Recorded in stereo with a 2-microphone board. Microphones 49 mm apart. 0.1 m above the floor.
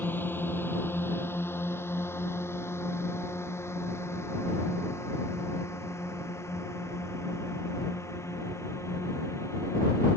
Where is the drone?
40° left (ahead or behind); by 10.2 s 70° left (ahead or behind).